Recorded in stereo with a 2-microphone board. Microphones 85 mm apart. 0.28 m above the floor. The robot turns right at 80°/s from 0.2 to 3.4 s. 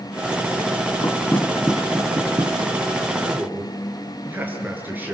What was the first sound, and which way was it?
Knocking, 40° left (ahead or behind).